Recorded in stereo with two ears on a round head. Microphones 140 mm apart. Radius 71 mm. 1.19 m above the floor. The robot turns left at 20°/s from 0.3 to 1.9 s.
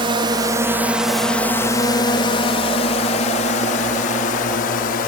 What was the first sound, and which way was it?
A drone, 35° right (ahead or behind).